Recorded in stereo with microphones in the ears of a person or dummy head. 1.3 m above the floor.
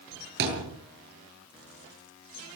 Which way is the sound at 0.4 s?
60° right (ahead or behind).